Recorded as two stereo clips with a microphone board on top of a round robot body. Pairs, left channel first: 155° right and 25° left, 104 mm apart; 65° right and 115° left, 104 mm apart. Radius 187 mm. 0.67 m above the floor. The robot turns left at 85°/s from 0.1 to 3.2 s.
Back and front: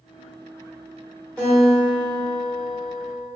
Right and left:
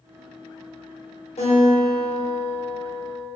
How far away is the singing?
No singing in this recording.